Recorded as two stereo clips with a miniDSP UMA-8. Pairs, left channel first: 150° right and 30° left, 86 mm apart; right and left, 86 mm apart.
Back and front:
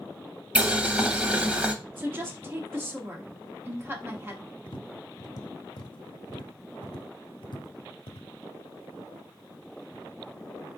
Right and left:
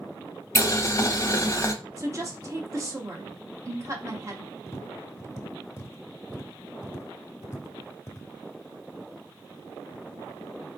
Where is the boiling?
40° right, 0.6 m.